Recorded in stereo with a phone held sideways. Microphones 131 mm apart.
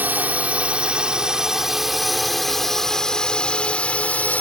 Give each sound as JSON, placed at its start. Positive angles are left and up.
{"t": 0.0, "sound": "a drone", "side_deg": -15}